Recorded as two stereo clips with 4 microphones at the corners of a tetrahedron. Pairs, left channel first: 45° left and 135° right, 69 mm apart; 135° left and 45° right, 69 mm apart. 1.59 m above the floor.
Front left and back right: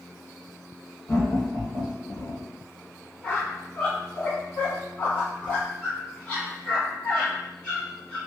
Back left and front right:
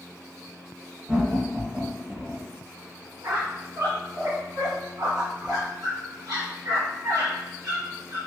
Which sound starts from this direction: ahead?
A squeak, at 3.2 s.